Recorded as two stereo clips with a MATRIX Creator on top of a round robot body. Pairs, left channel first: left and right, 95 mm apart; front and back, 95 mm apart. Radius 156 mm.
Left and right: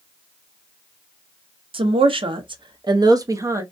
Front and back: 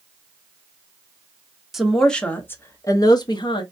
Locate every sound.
1.7 s a woman speaking: 95° right, 0.9 m; by 3.6 s 30° right, 1.0 m